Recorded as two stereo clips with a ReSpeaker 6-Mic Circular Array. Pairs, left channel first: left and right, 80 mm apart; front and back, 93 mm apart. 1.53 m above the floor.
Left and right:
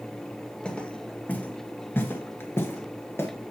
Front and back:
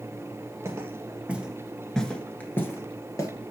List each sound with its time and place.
0.7 s footsteps: 160° left, 1.7 m; by 3.3 s 40° left, 2 m